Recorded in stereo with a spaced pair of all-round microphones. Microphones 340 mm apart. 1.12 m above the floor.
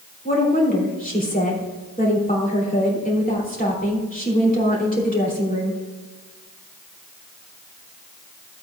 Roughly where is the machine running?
No machine running in this recording.